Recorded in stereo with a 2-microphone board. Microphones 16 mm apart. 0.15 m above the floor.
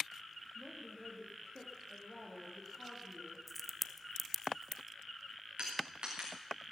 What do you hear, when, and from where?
0.6 s a woman speaking: 20° left (ahead or behind), 3.5 m
3.5 s a crack: centre (ahead or behind), 0.6 m
5.6 s crushing: 70° right (ahead or behind), 4.5 m